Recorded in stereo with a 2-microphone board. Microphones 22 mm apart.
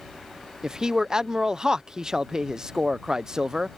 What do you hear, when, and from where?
0.6 s a man speaking: 30° right (ahead or behind)